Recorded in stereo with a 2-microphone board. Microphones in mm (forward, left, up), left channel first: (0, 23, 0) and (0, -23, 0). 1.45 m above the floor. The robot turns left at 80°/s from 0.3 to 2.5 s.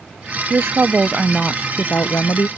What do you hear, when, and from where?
0.5 s a woman speaking: 110° right; by 2.5 s 90° left